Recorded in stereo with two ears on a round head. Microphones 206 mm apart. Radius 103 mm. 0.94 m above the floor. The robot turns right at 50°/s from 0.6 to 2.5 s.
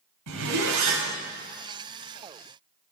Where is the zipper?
80° right, 3 m; by 1.1 s 75° right (ahead or behind), 3 m.